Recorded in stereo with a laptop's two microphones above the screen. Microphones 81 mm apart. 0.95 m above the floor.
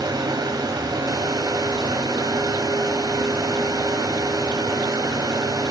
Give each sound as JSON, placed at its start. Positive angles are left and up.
{"t": 0.0, "sound": "a fan", "side_deg": -55, "distance_m": 1.7}